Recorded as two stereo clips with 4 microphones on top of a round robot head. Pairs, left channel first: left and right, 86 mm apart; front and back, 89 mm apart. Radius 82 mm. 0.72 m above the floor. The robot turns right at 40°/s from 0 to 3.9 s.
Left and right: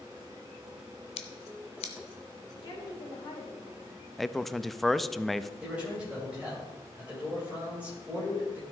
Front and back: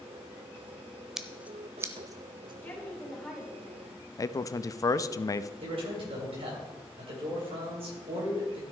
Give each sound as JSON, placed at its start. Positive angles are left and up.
{"t": 1.2, "sound": "scissors", "azimuth_deg": 95, "distance_m": 0.7}
{"t": 2.6, "sound": "a woman speaking", "azimuth_deg": 70, "distance_m": 3.0}
{"t": 4.2, "sound": "a man speaking", "azimuth_deg": 0, "distance_m": 0.5}
{"t": 5.6, "sound": "a man speaking", "azimuth_deg": -170, "distance_m": 3.5}